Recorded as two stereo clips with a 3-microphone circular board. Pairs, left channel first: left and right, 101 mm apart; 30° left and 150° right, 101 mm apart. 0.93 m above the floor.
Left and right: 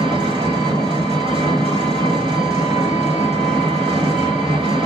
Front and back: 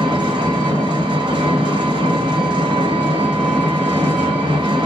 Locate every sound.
0.0 s an engine running: 115° right, 1.3 m